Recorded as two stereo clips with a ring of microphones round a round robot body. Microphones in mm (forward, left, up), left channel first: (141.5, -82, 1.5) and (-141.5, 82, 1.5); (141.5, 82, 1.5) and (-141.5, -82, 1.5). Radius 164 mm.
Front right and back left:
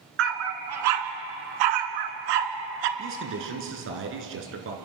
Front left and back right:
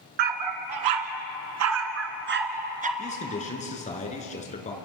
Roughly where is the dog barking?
Behind.